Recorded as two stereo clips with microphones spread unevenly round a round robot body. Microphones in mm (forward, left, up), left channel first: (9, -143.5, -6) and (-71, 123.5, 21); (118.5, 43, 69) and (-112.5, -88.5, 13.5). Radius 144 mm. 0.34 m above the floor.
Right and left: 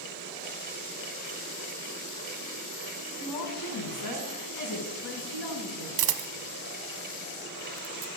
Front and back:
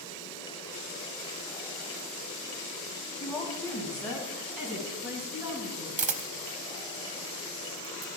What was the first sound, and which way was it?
A woman speaking, 55° right.